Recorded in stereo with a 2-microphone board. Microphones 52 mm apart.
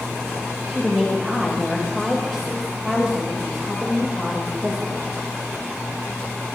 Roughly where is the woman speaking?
Centre.